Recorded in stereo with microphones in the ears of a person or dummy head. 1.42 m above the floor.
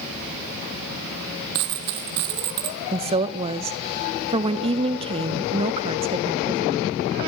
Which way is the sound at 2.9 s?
30° right (ahead or behind).